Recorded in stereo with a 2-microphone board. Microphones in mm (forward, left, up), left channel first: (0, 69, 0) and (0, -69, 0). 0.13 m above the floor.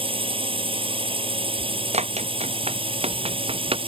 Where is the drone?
40° right (ahead or behind).